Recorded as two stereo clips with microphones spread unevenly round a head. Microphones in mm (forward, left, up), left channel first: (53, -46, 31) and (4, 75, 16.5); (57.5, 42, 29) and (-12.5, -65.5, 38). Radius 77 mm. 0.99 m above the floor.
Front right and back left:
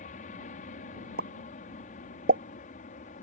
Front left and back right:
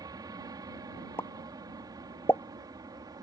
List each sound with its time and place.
0.0 s an aircraft: 65° right
1.2 s a pop: 135° left